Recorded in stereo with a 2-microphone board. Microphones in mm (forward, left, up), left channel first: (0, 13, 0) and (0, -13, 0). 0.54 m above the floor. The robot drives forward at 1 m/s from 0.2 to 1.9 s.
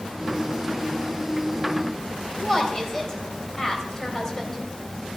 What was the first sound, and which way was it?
A woman speaking, 15° left (ahead or behind).